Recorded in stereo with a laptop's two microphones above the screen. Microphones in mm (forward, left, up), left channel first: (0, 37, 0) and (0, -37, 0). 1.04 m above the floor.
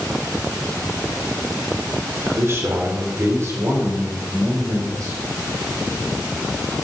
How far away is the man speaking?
About 3.5 m.